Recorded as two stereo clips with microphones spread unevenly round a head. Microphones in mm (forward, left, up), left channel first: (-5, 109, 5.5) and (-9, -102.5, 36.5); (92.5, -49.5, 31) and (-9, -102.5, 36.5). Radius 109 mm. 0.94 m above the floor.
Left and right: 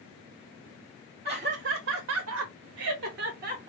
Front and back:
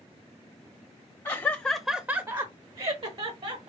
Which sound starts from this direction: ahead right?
Laughter, at 1.2 s.